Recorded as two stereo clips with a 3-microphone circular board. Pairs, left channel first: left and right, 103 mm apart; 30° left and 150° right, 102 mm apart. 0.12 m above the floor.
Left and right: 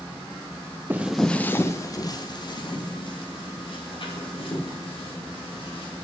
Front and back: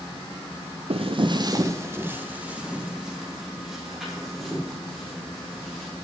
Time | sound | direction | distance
0.9 | footsteps | 165° right | 0.6 m